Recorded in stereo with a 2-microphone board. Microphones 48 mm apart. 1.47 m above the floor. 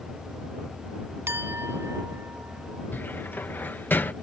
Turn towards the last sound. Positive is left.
turn(degrees=45)  # may be behind; listen again after turning